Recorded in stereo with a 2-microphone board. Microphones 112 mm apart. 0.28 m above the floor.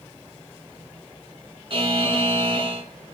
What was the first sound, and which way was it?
A buzzer, 50° right (ahead or behind).